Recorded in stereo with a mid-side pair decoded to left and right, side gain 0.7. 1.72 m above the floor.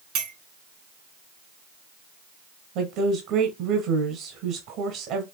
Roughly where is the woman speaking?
Ahead right.